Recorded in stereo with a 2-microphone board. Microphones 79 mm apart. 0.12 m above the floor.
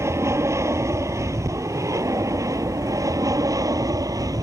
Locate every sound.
0.0 s an aircraft: 35° right (ahead or behind); by 4.4 s 50° right (ahead or behind)